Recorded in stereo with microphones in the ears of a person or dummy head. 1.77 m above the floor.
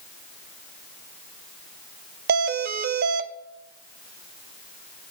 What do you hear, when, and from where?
2.3 s a doorbell: 60° right (ahead or behind), 0.9 m